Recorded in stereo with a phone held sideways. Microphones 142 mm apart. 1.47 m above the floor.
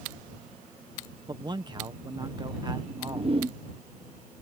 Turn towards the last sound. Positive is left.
turn(degrees=-40)  # may be behind; listen again after turning